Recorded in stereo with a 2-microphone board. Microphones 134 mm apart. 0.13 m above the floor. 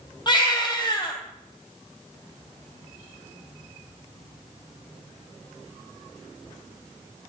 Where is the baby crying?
30° left (ahead or behind), 3 m.